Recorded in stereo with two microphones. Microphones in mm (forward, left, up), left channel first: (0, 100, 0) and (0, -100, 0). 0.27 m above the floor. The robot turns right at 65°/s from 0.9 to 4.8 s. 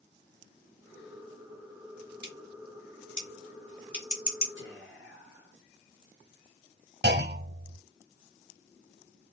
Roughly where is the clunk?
Right.